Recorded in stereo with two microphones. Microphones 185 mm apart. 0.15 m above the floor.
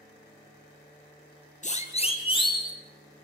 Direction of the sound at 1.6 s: 40° left (ahead or behind).